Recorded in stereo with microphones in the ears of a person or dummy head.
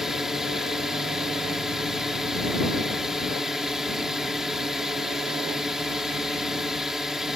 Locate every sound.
0.0 s a drone: centre (ahead or behind)